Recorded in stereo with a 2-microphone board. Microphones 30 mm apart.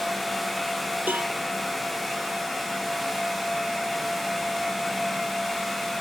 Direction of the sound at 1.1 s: 75° right (ahead or behind).